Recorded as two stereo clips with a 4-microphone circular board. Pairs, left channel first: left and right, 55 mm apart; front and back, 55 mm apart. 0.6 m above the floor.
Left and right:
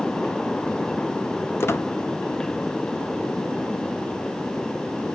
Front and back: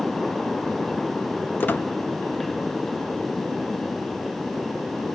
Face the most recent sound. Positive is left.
turn(degrees=50)